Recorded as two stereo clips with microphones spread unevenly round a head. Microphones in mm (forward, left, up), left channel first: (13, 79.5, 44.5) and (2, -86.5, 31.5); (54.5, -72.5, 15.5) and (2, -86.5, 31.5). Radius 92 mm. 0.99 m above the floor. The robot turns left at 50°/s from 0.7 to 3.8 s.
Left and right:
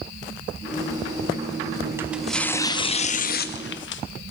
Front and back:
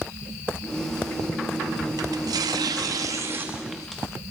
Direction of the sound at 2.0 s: 170° right.